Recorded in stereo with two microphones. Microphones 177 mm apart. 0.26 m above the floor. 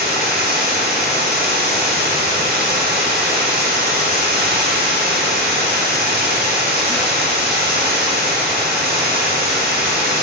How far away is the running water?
About 1.7 m.